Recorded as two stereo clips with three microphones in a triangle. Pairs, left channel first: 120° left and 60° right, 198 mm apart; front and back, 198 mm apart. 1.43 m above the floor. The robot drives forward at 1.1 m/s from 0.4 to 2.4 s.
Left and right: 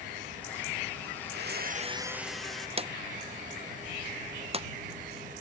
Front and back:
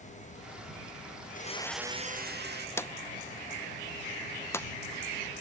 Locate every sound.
1.2 s a blender: 35° right, 0.7 m; by 2.7 s 150° right, 0.9 m
2.8 s a drawer: 65° right, 0.5 m